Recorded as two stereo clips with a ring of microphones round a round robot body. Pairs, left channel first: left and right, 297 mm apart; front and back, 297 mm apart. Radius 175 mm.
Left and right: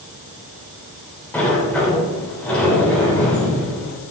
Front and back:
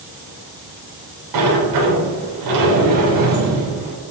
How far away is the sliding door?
About 3.5 m.